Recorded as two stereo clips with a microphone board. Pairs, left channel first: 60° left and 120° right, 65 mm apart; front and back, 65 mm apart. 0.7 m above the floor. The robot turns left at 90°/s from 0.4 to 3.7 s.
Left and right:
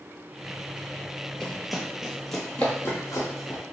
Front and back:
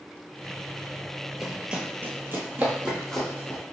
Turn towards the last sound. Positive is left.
turn(degrees=35)